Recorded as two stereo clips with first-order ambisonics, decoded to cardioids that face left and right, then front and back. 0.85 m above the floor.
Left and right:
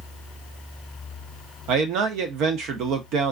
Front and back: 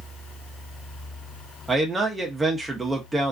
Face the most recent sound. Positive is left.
turn(degrees=-100)